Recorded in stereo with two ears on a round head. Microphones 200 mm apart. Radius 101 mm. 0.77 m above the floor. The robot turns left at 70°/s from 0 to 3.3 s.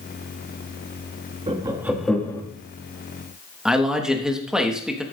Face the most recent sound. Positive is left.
turn(degrees=-5)  # may be behind; listen again after turning